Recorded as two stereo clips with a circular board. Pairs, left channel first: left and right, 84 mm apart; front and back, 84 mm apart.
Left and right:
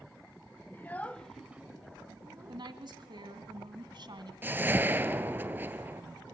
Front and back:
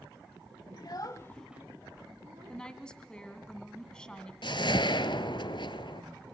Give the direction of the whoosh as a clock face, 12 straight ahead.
1 o'clock.